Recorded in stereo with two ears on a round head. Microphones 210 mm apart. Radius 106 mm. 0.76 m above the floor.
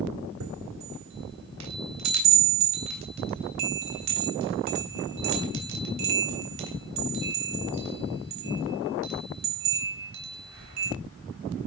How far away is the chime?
About 3.5 m.